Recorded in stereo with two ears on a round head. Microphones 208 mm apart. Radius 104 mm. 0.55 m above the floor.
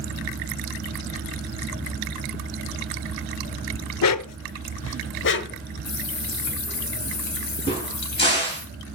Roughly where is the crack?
Left.